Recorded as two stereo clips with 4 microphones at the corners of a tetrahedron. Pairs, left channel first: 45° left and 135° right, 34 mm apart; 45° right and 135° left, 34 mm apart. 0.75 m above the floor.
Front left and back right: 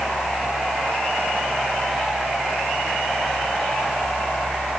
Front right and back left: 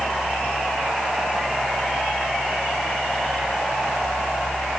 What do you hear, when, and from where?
Only background noise.